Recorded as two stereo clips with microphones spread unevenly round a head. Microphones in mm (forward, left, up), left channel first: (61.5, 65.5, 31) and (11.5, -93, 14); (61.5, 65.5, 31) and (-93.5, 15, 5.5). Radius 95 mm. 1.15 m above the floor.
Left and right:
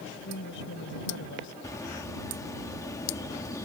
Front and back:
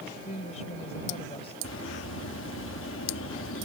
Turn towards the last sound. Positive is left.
turn(degrees=0)